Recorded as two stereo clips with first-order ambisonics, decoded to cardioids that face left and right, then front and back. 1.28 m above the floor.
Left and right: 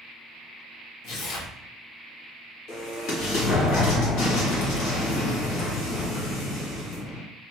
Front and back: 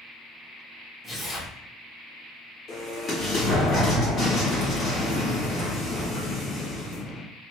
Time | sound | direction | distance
1.0 | tearing paper | 75° left | 0.8 m
2.7 | an explosion | 65° left | 1.4 m